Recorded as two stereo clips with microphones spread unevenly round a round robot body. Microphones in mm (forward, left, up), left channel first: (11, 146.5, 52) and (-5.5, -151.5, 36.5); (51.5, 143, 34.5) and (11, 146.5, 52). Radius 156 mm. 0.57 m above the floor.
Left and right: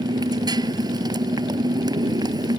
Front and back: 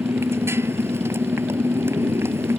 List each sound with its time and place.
0.0 s a motorcycle: 170° right